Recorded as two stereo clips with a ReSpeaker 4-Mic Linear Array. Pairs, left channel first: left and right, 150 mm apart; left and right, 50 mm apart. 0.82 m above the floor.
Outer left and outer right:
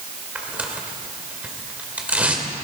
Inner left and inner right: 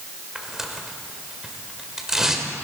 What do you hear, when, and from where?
0.3 s tearing paper: 10° right (ahead or behind), 1.6 m